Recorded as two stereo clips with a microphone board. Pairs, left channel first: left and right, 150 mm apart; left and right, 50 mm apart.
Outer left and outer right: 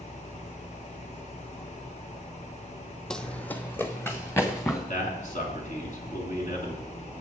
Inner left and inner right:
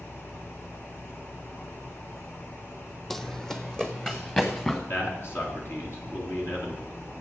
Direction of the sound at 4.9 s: 55° left (ahead or behind).